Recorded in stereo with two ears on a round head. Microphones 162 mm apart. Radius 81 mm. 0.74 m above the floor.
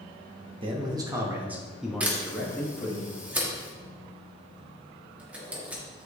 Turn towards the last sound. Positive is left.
turn(degrees=-10)  # may be behind; listen again after turning